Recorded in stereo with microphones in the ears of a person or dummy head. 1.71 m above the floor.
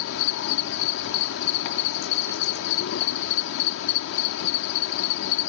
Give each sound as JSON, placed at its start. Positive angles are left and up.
{"t": 0.0, "sound": "an insect", "side_deg": 70}